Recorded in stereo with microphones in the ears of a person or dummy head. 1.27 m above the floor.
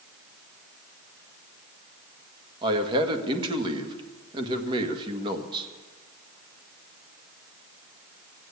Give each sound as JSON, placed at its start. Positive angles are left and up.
{"t": 2.6, "sound": "a man speaking", "side_deg": -30, "distance_m": 1.6}